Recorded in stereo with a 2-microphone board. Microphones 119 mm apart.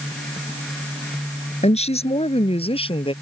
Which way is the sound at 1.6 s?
65° left (ahead or behind).